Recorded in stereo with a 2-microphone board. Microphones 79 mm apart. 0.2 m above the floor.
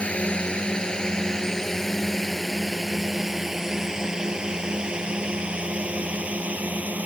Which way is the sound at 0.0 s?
15° left (ahead or behind).